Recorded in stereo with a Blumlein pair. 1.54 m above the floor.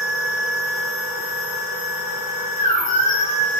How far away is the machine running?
About 2 m.